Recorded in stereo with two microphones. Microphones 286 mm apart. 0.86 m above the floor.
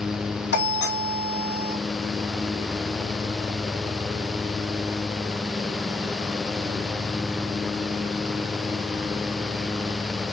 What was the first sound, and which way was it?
A doorbell, 35° left (ahead or behind).